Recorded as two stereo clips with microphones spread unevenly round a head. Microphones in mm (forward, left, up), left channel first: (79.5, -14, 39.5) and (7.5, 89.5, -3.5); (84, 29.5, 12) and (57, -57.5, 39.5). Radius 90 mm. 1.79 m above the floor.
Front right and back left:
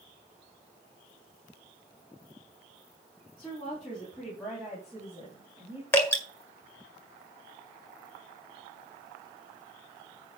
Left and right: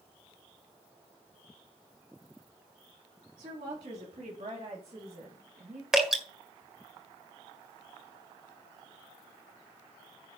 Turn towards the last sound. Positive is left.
turn(degrees=-55)